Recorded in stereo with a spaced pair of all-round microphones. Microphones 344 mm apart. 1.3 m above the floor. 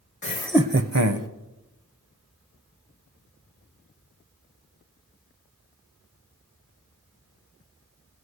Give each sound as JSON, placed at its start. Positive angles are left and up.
{"t": 0.2, "sound": "laughter", "side_deg": 40, "distance_m": 0.7}